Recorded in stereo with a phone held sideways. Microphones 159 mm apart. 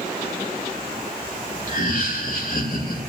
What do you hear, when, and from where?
1.7 s laughter: 65° left (ahead or behind), 3 m